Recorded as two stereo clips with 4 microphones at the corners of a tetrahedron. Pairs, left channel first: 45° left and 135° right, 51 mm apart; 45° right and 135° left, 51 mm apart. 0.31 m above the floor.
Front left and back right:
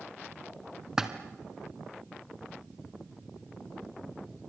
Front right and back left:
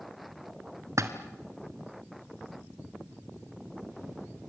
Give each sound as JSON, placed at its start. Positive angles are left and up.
{"t": 1.0, "sound": "a splash", "azimuth_deg": 145, "distance_m": 2.0}